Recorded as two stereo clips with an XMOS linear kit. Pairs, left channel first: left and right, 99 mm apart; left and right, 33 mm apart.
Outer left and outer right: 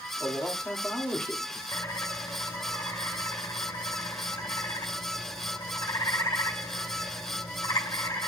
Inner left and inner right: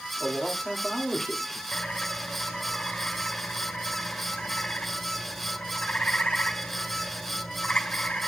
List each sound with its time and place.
0.2 s a man speaking: 15° left (ahead or behind), 1.9 m
1.7 s a bird: 45° left (ahead or behind), 2.5 m